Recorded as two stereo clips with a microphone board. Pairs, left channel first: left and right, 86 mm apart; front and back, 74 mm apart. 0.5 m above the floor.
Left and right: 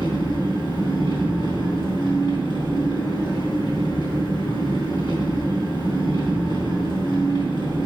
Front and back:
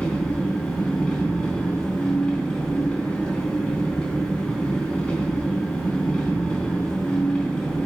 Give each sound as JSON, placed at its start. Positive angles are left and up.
{"t": 0.0, "sound": "an engine running", "azimuth_deg": 80, "distance_m": 3.5}